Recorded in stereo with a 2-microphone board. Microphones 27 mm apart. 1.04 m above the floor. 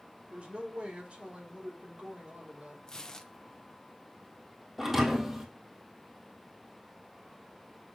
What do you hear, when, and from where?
0.3 s a woman speaking: 50° right (ahead or behind), 4.5 m
2.9 s tearing paper: 25° left (ahead or behind), 0.8 m
4.8 s a thud: 15° right (ahead or behind), 2 m